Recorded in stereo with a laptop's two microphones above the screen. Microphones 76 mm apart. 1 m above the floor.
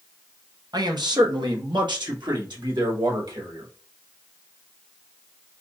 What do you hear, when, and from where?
0.7 s a man speaking: 60° right (ahead or behind), 0.8 m; by 3.7 s 70° right (ahead or behind), 2.5 m